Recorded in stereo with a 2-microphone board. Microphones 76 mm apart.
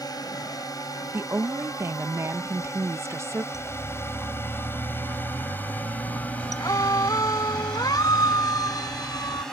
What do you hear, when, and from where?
0.0 s a drone: 60° left (ahead or behind); by 9.5 s 5° left (ahead or behind)
1.1 s a woman speaking: 40° right (ahead or behind)
3.5 s a siren: 45° left (ahead or behind); by 9.4 s 60° left (ahead or behind)